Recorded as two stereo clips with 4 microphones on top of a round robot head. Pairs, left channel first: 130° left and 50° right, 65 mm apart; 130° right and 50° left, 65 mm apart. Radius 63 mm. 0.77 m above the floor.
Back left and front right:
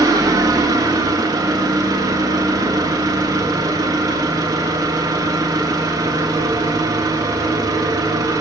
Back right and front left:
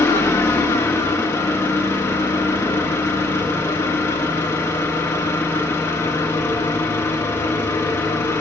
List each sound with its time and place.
0.0 s an engine running: 80° right, 1.3 m